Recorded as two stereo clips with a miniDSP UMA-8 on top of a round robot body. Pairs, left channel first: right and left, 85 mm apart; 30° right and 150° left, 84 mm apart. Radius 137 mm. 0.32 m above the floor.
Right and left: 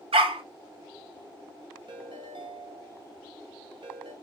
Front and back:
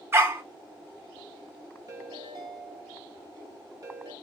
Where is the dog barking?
90° left, 1.1 m.